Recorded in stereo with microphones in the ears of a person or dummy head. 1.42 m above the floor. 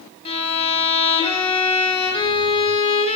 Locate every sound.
0.2 s a violin: 25° left (ahead or behind), 2.5 m